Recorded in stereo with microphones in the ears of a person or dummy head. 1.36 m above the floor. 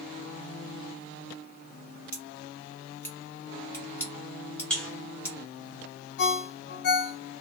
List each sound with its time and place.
2.1 s scissors: 15° left (ahead or behind), 0.7 m
4.7 s a buzzer: centre (ahead or behind), 0.8 m
6.2 s a ringtone: 55° left (ahead or behind), 0.7 m